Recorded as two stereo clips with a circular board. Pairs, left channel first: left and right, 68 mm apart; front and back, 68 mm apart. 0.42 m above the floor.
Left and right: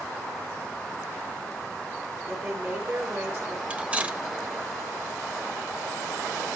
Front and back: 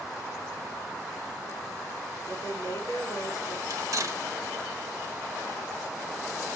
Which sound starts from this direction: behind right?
Cutlery clinking, at 3.7 s.